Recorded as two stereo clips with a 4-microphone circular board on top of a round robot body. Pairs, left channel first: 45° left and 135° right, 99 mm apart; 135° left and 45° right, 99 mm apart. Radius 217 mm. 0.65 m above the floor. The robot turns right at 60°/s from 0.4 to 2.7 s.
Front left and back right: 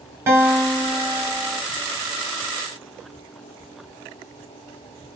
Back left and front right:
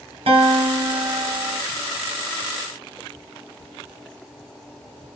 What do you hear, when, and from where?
0.3 s a guitar: 70° right, 2.5 m; by 1.6 s 5° left, 2.5 m